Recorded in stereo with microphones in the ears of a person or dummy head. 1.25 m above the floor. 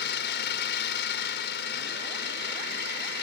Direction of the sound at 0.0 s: 60° left (ahead or behind).